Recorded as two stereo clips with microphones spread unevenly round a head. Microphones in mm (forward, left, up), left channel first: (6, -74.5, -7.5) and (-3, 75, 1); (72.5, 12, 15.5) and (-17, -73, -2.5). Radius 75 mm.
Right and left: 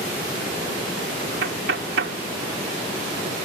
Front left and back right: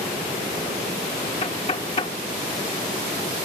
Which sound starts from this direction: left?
Knocking, at 1.4 s.